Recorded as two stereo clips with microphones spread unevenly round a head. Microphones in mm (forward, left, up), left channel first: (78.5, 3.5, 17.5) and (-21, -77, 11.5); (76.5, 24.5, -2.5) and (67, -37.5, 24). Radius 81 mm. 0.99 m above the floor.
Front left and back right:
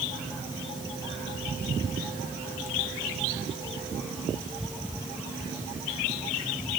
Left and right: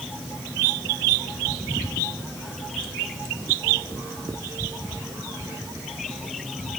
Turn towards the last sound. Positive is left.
No sound to turn to.